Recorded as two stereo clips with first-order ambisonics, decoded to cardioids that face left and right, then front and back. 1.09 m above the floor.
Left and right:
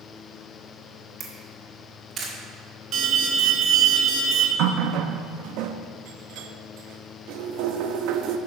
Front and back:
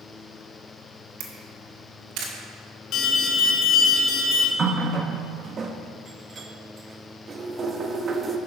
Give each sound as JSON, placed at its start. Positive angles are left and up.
{"t": 1.2, "sound": "a camera shutter", "azimuth_deg": -155, "distance_m": 1.9}
{"t": 2.9, "sound": "an alarm", "azimuth_deg": -45, "distance_m": 1.4}
{"t": 4.6, "sound": "a running tap", "azimuth_deg": -115, "distance_m": 0.7}